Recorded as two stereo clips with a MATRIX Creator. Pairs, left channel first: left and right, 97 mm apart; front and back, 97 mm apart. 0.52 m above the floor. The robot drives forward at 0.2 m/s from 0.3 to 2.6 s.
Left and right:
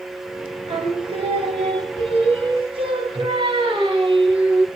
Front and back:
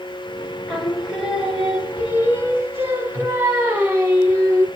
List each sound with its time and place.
0.7 s singing: 90° right, 0.9 m; by 4.7 s 115° right, 1.0 m